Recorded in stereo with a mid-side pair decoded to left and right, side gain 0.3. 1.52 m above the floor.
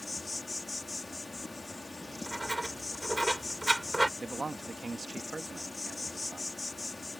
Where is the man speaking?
40° right.